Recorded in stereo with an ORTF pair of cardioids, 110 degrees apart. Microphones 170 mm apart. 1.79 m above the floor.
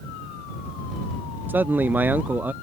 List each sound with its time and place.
1.5 s a man speaking: 10° right